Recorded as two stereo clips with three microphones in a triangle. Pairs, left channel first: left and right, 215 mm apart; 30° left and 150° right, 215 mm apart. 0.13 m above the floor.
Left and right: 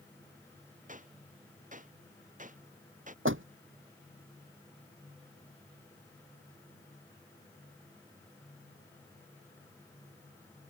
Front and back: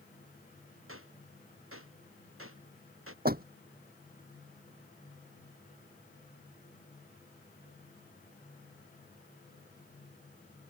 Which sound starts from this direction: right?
A door slam, at 3.2 s.